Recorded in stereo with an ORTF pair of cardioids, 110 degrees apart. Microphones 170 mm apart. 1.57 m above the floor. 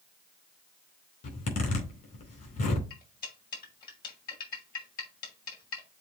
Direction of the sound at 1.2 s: 55° left.